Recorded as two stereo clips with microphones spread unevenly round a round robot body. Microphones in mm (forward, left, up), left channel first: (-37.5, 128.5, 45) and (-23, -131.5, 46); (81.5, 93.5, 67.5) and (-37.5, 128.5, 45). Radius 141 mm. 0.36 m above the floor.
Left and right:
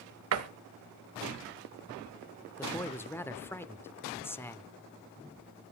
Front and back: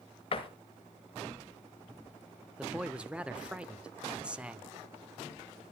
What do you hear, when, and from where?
0.3 s a door slam: 70° right, 1.2 m
2.6 s a man speaking: 155° left, 0.8 m